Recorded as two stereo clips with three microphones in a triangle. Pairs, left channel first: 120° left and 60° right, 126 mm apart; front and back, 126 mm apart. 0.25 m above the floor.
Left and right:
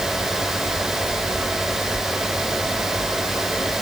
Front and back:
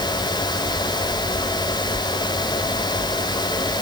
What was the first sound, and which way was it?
Only background noise.